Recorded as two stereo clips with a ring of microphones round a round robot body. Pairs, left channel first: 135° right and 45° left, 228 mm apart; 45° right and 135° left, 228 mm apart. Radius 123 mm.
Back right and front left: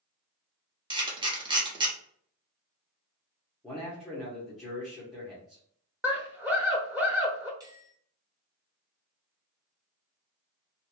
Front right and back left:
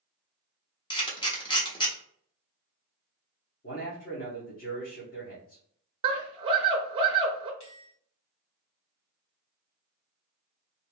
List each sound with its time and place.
0.9 s a camera shutter: straight ahead, 1.2 m
3.6 s a man speaking: 45° right, 1.3 m
6.0 s a scream: 115° left, 0.8 m
7.6 s a bell: 25° right, 2.0 m